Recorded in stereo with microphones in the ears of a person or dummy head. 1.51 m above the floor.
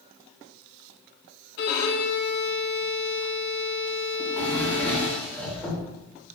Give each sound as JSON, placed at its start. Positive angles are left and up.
{"t": 1.6, "sound": "a violin", "side_deg": 70, "distance_m": 1.2}
{"t": 4.2, "sound": "a drawer", "side_deg": 5, "distance_m": 3.5}